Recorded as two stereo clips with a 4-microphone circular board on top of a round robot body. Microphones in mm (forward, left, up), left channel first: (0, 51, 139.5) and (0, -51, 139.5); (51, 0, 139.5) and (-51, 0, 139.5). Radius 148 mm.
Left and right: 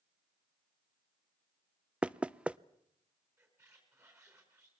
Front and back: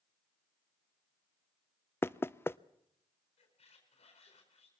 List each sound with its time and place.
2.0 s knocking: 25° right, 0.7 m
3.4 s a squeak: 25° right, 4 m